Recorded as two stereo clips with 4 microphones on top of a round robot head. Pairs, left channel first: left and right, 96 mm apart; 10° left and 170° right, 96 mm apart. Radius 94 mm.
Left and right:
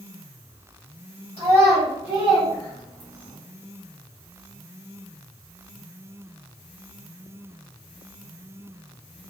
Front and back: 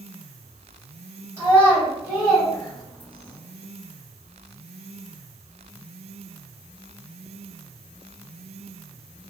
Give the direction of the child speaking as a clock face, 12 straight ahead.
7 o'clock.